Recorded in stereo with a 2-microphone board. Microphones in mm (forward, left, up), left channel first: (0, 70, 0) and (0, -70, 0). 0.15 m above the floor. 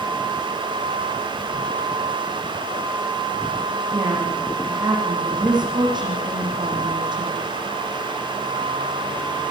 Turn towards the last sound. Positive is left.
turn(degrees=-35)  # may be behind; listen again after turning